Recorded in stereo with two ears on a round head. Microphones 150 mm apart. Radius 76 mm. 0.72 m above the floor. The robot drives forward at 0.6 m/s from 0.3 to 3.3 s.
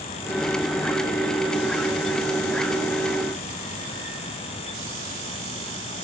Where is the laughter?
No laughter in this recording.